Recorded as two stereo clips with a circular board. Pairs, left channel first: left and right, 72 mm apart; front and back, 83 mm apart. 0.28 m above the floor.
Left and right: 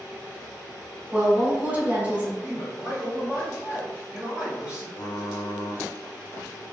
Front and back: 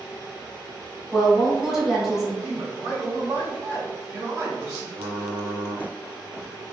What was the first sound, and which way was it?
A woman speaking, 100° right.